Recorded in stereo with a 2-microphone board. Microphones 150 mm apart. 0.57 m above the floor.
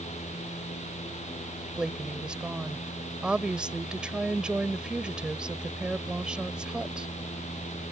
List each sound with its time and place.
1.8 s a woman speaking: 5° right (ahead or behind)